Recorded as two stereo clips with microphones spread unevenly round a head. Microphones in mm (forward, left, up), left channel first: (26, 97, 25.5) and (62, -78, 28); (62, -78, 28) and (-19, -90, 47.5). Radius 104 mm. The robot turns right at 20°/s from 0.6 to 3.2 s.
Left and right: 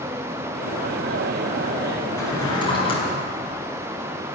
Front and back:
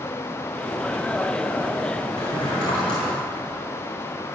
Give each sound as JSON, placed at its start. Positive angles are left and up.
{"t": 2.2, "sound": "a drawer", "azimuth_deg": 25, "distance_m": 4.0}